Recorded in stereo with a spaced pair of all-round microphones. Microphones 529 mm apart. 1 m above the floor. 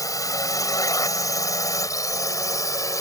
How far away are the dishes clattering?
No dishes clattering in this recording.